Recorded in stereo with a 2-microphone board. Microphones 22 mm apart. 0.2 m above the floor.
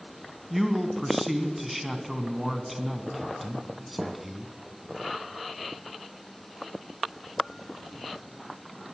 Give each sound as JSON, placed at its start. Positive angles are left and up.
{"t": 0.5, "sound": "a man speaking", "side_deg": -5, "distance_m": 1.9}